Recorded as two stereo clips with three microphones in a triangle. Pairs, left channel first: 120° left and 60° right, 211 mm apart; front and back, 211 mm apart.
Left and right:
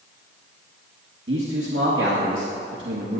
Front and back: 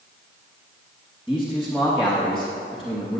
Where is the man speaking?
90° right, 2.5 m.